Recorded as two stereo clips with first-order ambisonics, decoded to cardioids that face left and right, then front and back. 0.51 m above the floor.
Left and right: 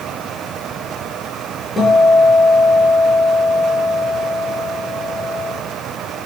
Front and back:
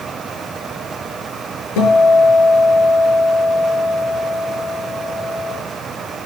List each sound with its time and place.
1.8 s a guitar: 10° left, 6.5 m